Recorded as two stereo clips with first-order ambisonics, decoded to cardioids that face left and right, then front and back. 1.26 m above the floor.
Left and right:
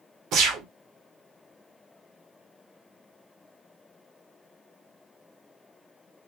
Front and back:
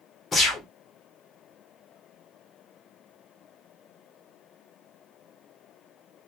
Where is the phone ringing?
No phone ringing in this recording.